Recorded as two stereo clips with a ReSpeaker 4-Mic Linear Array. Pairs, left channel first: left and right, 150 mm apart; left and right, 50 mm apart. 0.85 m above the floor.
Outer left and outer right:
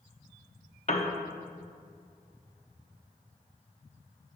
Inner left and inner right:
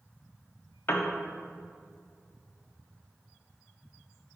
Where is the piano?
50° left (ahead or behind), 1.0 m.